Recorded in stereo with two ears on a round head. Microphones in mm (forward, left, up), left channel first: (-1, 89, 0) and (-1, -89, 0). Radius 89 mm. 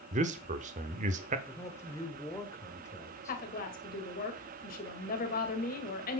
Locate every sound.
0.1 s a man speaking: 35° right (ahead or behind), 0.9 m
1.5 s a man speaking: 15° left (ahead or behind), 1.7 m
3.3 s a woman speaking: 45° left (ahead or behind), 2 m